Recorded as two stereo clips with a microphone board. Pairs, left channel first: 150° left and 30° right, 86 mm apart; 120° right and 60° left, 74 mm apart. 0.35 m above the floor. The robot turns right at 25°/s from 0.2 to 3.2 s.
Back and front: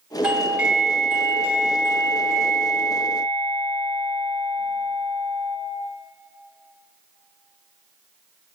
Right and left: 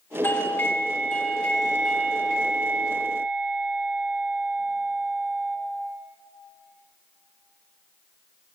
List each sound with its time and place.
0.2 s a doorbell: 100° right, 1.7 m; by 5.6 s 25° right, 1.7 m